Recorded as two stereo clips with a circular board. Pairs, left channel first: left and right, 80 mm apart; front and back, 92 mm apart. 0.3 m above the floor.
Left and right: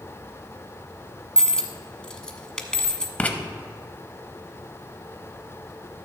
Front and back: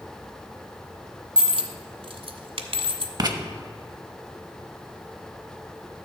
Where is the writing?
160° left, 0.8 m.